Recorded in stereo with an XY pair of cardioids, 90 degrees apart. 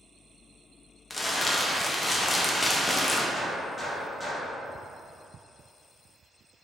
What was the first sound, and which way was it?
Crumpling, 25° left.